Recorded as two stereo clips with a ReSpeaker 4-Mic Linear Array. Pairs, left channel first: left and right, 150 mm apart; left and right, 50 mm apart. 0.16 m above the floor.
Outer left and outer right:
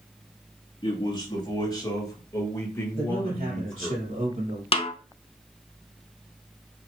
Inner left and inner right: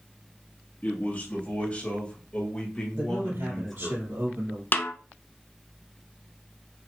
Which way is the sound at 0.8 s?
30° left (ahead or behind).